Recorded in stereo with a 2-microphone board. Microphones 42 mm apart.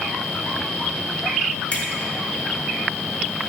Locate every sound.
1.7 s a finger snap: 30° left (ahead or behind), 1.5 m